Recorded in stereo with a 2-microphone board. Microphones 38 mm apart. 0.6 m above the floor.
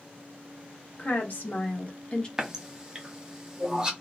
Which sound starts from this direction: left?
A woman speaking, at 1.0 s.